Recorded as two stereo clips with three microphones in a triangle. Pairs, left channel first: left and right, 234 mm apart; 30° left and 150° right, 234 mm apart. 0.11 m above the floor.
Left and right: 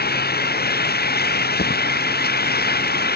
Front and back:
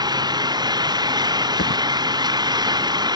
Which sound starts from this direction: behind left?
An engine running, at 0.0 s.